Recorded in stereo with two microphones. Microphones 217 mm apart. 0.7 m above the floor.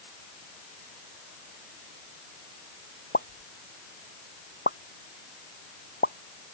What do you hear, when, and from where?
3.1 s a pop: 50° left (ahead or behind)